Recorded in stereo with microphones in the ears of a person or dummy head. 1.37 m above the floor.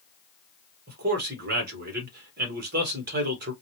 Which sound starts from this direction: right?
A man speaking, at 0.9 s.